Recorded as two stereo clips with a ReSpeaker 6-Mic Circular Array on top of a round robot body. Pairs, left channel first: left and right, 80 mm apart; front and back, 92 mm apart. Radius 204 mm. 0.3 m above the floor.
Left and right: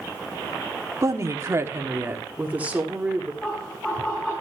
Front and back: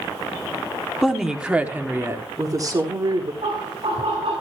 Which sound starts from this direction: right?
A woman speaking, at 1.0 s.